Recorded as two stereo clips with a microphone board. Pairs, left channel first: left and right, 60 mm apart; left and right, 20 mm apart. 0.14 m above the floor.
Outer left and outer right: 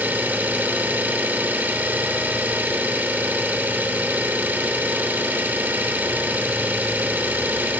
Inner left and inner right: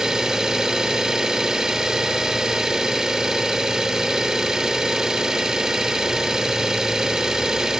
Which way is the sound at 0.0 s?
25° right (ahead or behind).